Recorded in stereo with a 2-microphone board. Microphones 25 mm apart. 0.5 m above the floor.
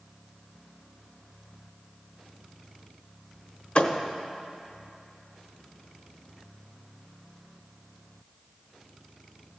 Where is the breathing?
No breathing in this recording.